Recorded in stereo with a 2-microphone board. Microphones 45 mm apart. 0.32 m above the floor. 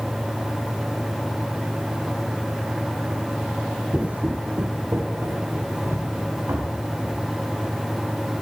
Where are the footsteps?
20° right (ahead or behind), 0.5 m; by 7.2 s 75° right (ahead or behind), 3 m.